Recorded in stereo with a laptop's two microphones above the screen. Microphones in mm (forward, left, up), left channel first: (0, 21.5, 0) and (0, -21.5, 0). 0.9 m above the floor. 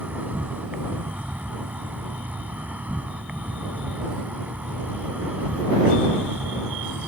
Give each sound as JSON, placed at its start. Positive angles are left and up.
{"t": 0.0, "sound": "an insect", "side_deg": -35}